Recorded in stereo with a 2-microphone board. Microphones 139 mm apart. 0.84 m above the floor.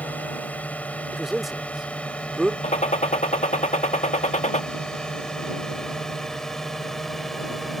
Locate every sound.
0.0 s a drone: 10° left (ahead or behind); by 7.8 s centre (ahead or behind)
1.1 s a man speaking: centre (ahead or behind)
2.6 s a gunshot: 55° left (ahead or behind)